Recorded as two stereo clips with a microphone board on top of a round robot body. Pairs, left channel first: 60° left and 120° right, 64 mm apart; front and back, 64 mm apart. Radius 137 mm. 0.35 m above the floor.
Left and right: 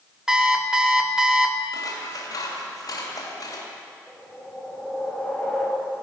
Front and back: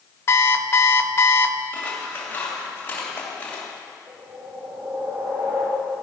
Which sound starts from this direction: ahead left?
Scissors, at 1.7 s.